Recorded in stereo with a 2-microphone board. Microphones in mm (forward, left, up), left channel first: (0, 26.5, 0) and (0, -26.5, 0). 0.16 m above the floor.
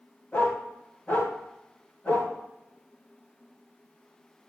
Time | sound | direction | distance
0.3 | a dog barking | 30° left (ahead or behind) | 7 m